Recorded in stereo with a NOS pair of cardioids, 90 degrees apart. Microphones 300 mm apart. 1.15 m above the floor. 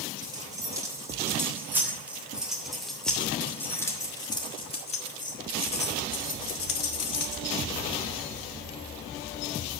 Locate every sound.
0.2 s keys jangling: 15° right, 3.5 m; by 7.4 s 60° left, 1.8 m